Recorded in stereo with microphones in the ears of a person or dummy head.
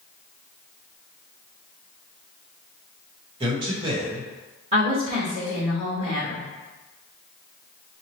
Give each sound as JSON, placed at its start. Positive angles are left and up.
{"t": 3.4, "sound": "a man speaking", "side_deg": -30, "distance_m": 1.6}
{"t": 4.7, "sound": "a woman speaking", "side_deg": -40, "distance_m": 2.0}